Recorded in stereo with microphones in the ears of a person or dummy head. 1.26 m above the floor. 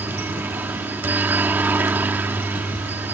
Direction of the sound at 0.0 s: 10° right (ahead or behind).